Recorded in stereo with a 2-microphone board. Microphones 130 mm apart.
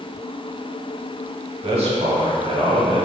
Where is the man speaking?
50° right (ahead or behind), 1.1 m.